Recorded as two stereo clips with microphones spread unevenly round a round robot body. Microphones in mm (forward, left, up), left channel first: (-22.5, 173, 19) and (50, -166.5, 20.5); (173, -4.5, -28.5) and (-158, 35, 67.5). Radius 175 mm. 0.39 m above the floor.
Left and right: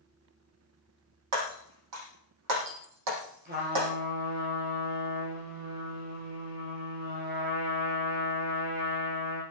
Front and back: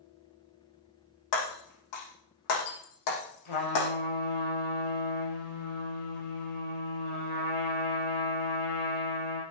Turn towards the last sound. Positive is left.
turn(degrees=-15)